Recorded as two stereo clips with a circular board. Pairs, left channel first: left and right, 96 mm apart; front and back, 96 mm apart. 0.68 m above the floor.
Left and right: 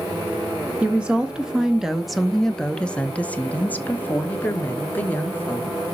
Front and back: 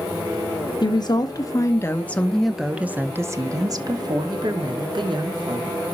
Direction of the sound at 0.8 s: 15° right.